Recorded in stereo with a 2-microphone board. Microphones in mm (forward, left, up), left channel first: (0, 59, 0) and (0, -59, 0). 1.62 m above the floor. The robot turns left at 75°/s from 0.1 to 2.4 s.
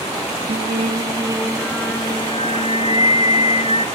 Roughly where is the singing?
Right.